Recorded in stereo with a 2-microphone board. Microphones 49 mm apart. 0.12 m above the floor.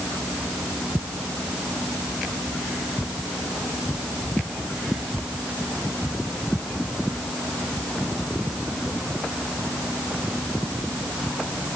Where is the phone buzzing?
No phone buzzing in this recording.